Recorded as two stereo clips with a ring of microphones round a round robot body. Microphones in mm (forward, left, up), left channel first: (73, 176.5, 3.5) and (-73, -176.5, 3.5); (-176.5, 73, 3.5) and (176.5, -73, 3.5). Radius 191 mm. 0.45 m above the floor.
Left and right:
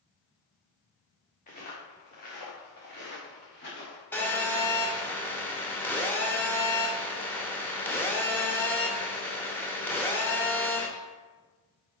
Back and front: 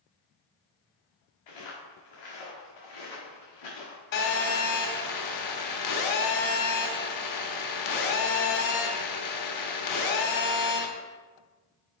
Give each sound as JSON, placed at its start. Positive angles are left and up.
{"t": 1.5, "sound": "footsteps", "azimuth_deg": 135, "distance_m": 3.0}
{"t": 4.1, "sound": "a phone buzzing", "azimuth_deg": 150, "distance_m": 1.1}